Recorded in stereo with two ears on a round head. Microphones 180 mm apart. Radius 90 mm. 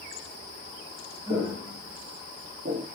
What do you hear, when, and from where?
1.3 s footsteps: 25° right (ahead or behind), 1.5 m; by 2.9 s 40° right (ahead or behind), 0.6 m